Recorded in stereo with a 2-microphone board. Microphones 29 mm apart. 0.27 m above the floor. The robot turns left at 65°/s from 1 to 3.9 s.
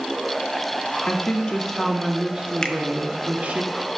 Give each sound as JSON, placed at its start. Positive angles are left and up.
{"t": 1.1, "sound": "a woman speaking", "azimuth_deg": 50, "distance_m": 2.0}
{"t": 2.6, "sound": "a finger snap", "side_deg": 25, "distance_m": 1.0}